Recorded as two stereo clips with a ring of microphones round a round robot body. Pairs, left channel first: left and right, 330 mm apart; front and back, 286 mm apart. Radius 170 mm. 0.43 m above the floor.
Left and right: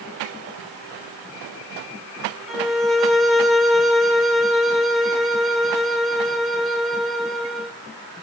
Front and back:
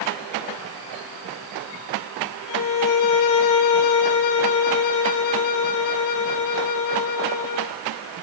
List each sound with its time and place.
2.5 s a violin: straight ahead, 1.4 m